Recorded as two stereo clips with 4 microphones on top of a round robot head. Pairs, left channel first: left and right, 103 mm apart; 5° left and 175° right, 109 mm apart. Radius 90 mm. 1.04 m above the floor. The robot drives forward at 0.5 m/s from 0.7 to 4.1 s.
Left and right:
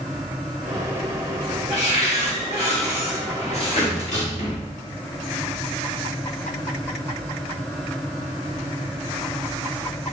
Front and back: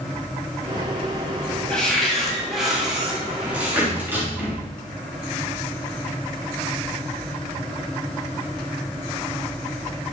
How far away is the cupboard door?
About 2.5 m.